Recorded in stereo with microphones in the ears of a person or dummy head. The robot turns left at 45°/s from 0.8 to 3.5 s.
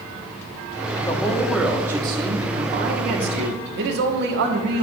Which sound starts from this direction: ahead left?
A man speaking, at 0.9 s.